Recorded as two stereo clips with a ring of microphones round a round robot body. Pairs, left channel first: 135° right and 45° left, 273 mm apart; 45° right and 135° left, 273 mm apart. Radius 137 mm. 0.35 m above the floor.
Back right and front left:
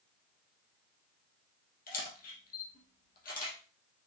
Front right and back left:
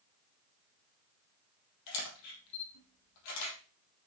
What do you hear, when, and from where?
1.9 s a camera shutter: 75° right, 4.5 m